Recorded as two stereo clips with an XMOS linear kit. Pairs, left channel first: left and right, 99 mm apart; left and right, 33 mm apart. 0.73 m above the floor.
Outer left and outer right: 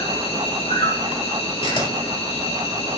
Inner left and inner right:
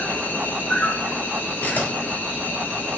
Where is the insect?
80° left, 5 m.